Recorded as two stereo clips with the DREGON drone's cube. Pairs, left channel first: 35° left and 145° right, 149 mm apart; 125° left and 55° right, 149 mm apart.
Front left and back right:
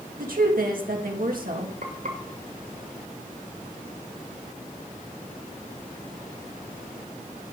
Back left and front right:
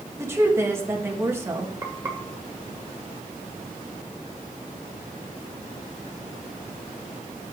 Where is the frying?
125° right, 2.5 m.